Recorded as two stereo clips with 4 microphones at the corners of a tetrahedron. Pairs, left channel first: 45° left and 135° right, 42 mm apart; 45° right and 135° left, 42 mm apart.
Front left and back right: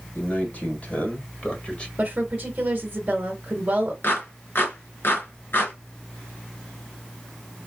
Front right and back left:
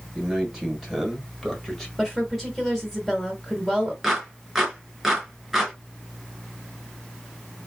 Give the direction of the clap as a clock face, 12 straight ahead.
10 o'clock.